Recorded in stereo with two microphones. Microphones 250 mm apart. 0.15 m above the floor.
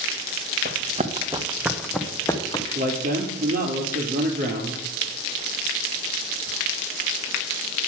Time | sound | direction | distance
0.7 | running footsteps | 40° right (ahead or behind) | 1.4 m
2.8 | a man speaking | 35° right (ahead or behind) | 2.5 m